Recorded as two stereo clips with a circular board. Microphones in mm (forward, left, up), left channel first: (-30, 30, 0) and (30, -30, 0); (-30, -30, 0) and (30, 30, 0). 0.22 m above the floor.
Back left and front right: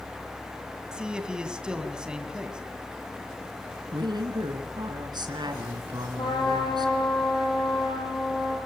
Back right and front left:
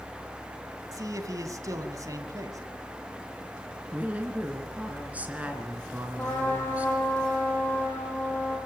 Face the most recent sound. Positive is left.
turn(degrees=160)